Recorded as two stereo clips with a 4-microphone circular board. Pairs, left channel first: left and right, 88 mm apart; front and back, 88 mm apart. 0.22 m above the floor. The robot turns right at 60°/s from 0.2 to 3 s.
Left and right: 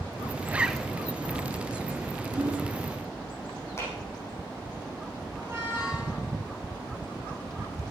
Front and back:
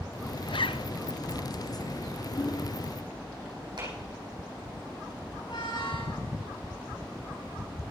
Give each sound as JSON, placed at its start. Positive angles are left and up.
{"t": 0.5, "sound": "a zipper", "azimuth_deg": -20, "distance_m": 0.5}
{"t": 2.4, "sound": "hammering", "azimuth_deg": -40, "distance_m": 4.0}
{"t": 3.8, "sound": "a clap", "azimuth_deg": 150, "distance_m": 6.5}
{"t": 5.3, "sound": "a squeak", "azimuth_deg": -25, "distance_m": 7.0}